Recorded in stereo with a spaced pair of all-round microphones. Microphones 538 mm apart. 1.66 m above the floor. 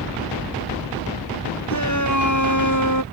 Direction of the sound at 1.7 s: 35° left (ahead or behind).